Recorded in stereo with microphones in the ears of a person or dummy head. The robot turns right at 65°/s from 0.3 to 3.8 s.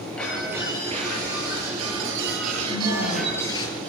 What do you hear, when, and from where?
0.2 s breaking glass: 175° left, 8 m; by 3.7 s 35° left, 8 m
2.7 s a woman speaking: 30° left, 8 m; by 3.6 s 90° left, 8 m